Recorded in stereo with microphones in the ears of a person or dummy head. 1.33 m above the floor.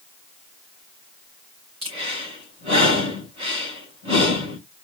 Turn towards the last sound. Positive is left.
turn(degrees=-30)  # may be behind; listen again after turning